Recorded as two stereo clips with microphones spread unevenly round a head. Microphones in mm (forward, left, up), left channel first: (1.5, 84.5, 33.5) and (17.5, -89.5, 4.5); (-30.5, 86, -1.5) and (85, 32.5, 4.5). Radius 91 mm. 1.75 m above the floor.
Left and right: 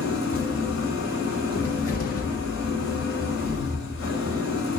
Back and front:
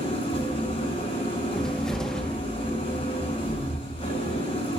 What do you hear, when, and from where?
0.0 s an engine running: 110° left, 6 m
1.5 s a cupboard door: 70° left, 1.8 m